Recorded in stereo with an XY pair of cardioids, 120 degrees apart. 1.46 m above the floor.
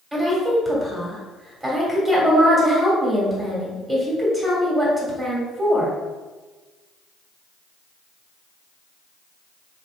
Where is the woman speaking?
15° right, 1.5 m.